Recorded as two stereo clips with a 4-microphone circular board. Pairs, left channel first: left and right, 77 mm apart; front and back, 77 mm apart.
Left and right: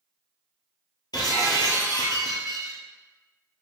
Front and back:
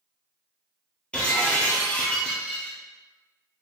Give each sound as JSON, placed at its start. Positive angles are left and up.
{"t": 1.1, "sound": "breaking glass", "azimuth_deg": 75, "distance_m": 1.2}